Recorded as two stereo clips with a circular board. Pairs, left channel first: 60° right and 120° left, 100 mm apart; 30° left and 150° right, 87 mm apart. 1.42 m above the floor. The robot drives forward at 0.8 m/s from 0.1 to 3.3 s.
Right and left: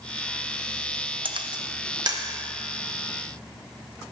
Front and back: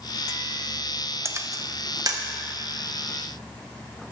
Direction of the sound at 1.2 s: 150° left.